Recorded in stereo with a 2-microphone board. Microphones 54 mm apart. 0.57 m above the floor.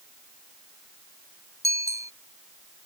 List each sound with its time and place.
1.6 s a bicycle bell: 75° right (ahead or behind)